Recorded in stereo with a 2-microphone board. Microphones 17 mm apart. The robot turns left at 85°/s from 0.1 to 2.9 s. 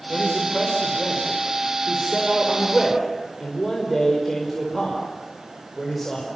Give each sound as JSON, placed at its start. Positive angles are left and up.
{"t": 0.1, "sound": "a man speaking", "side_deg": 50, "distance_m": 4.5}